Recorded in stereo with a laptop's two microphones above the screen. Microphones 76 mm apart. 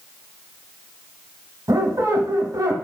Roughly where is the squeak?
Right.